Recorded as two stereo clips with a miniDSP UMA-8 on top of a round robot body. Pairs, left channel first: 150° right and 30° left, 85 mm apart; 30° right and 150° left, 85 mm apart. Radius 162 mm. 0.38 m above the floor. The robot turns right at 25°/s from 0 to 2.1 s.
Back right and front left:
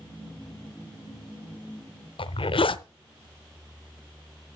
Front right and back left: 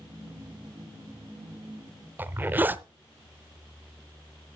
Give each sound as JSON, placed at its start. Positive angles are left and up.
{"t": 2.2, "sound": "a zipper", "azimuth_deg": -140, "distance_m": 0.8}